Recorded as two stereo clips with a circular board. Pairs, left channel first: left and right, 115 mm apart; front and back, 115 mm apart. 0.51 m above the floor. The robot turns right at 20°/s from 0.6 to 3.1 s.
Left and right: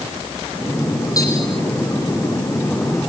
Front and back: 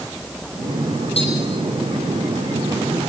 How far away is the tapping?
About 7.5 m.